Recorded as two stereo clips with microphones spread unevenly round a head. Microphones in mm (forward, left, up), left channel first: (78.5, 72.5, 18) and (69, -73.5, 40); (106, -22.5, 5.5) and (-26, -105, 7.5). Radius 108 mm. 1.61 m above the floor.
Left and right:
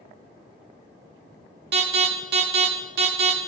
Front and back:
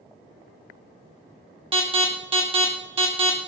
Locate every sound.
1.7 s an alarm: 90° right, 3 m